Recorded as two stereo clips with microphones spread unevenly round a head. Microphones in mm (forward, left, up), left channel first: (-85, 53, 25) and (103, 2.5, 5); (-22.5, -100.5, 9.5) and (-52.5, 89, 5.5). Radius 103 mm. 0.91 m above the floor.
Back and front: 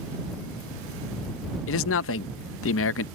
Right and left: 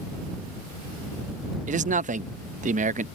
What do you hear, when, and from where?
1.7 s a man speaking: 150° left